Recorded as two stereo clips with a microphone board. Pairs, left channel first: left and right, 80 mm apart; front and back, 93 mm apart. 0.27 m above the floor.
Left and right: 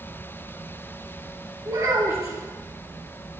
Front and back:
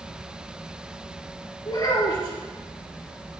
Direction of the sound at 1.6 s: 45° right.